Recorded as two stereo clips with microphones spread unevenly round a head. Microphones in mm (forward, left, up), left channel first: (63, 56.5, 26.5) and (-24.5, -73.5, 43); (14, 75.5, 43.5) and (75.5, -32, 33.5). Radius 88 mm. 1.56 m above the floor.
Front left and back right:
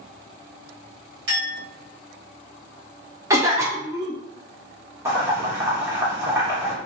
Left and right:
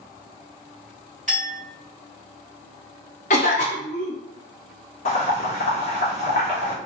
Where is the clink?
160° right, 1.4 m.